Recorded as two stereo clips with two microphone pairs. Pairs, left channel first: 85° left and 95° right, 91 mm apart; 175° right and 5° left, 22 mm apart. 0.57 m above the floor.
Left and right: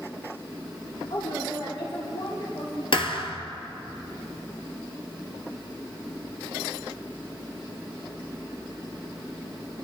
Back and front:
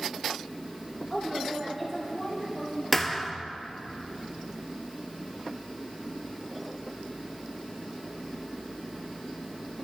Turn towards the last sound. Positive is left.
turn(degrees=100)